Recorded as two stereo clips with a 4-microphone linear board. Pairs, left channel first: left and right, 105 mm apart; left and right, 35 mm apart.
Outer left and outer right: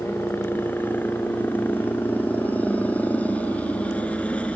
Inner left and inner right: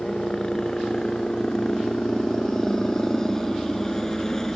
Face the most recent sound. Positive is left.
turn(degrees=10)  # may be behind; listen again after turning